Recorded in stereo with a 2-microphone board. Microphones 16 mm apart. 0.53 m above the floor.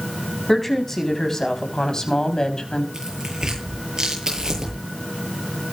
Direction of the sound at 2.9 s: 45° right (ahead or behind).